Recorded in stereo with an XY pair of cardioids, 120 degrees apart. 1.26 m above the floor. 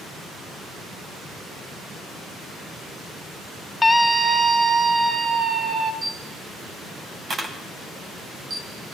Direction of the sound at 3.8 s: 20° left.